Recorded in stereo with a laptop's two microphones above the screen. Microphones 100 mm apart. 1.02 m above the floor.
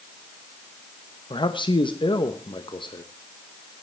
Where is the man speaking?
55° left (ahead or behind), 0.9 m.